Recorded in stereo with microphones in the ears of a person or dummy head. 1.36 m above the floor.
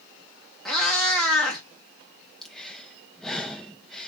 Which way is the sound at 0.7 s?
5° left (ahead or behind).